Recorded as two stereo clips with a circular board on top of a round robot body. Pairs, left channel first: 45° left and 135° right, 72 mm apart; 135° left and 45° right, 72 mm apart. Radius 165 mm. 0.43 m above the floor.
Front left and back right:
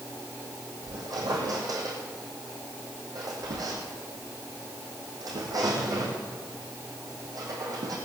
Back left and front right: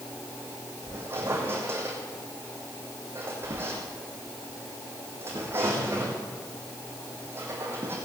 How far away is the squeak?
About 3.5 m.